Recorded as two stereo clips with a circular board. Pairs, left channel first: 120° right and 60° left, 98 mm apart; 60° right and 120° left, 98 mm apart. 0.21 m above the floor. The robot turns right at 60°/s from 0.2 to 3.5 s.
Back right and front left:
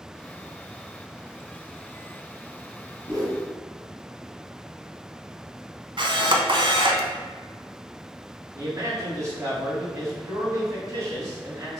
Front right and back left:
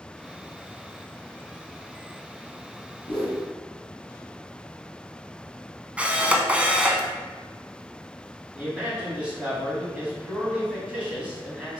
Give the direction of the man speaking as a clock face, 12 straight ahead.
10 o'clock.